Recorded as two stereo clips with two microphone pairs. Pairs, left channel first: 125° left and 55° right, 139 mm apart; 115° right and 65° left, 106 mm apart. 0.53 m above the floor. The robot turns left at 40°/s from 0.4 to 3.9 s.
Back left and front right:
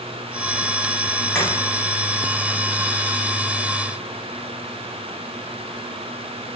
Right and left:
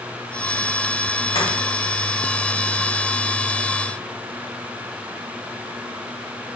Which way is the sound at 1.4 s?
145° right.